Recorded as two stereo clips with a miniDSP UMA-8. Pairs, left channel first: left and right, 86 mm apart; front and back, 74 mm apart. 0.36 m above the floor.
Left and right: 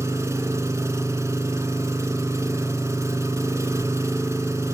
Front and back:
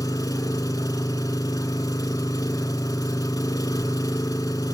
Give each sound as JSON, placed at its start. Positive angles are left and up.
{"t": 0.0, "sound": "an engine running", "azimuth_deg": -35, "distance_m": 0.9}